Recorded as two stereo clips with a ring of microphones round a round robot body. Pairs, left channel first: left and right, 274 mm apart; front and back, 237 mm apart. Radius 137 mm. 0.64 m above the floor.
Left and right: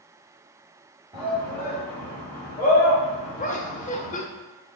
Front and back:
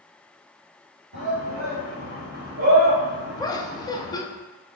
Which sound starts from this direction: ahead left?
Laughter, at 3.4 s.